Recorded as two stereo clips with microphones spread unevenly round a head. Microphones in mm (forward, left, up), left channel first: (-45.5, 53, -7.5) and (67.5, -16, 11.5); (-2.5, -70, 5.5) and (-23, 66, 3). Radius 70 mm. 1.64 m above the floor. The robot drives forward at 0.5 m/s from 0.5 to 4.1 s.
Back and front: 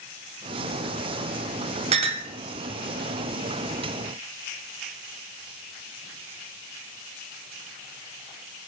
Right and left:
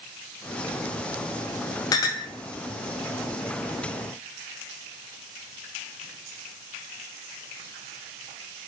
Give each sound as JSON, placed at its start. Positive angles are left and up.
{"t": 1.9, "sound": "a clink", "azimuth_deg": -20, "distance_m": 0.7}